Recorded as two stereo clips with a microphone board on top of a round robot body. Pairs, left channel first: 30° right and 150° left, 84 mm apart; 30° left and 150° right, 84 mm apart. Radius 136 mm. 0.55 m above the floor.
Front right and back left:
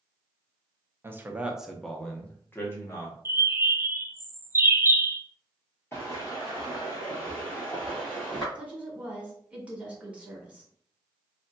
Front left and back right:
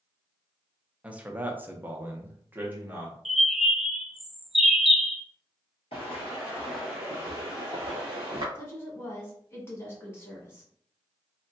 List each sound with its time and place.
1.0 s a man speaking: 150° left, 0.8 m; by 3.1 s 85° right, 1.3 m
3.2 s a bird: 125° left, 0.6 m
5.9 s footsteps: 30° left, 0.7 m; by 8.4 s 115° right, 1.1 m
8.6 s a woman speaking: 80° left, 1.7 m